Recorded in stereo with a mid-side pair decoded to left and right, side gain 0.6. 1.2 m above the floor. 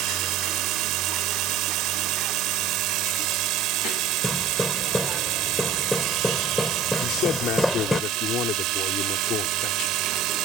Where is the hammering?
10° left.